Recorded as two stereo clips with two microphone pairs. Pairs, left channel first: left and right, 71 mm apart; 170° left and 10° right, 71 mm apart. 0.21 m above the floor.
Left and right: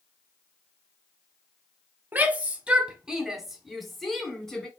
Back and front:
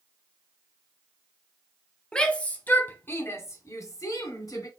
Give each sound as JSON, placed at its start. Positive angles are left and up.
{"t": 2.1, "sound": "a shout", "azimuth_deg": -125, "distance_m": 1.1}